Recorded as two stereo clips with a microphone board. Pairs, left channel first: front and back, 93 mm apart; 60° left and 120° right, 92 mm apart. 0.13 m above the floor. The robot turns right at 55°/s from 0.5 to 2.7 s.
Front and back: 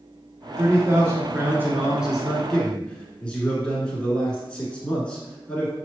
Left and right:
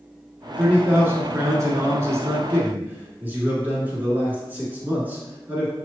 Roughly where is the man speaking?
Behind.